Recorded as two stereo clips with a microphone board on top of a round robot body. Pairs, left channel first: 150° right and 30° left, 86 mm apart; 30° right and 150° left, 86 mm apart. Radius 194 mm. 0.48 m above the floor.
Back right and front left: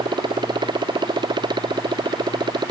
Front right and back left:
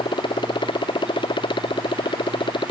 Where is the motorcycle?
5° right.